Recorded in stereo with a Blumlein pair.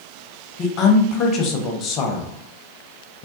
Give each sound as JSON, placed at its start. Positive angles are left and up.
{"t": 0.6, "sound": "a woman speaking", "azimuth_deg": 35, "distance_m": 0.8}